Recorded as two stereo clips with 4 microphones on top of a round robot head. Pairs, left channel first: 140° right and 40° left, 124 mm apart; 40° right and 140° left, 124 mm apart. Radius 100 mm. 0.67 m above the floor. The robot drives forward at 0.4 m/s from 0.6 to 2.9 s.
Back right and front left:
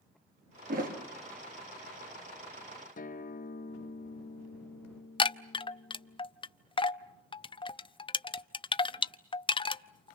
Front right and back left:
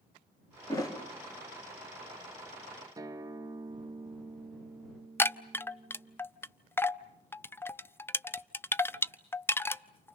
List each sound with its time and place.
0.7 s a thud: 20° left, 4.5 m; by 1.0 s 25° left, 4.5 m
3.0 s a guitar: 160° right, 1.1 m
5.2 s a chime: 110° right, 0.8 m